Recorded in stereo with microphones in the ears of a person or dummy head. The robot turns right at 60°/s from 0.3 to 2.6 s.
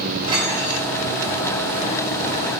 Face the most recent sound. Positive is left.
turn(degrees=110)